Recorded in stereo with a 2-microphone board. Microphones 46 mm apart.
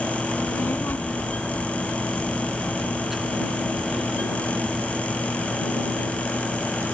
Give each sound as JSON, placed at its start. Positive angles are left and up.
{"t": 0.3, "sound": "a child speaking", "side_deg": 50}